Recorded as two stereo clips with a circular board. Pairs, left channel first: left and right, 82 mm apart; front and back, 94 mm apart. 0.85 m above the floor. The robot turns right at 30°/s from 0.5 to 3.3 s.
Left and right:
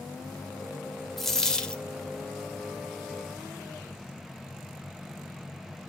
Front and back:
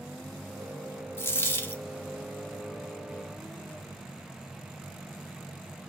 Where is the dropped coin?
10° left, 0.6 m; by 1.8 s 30° left, 0.6 m.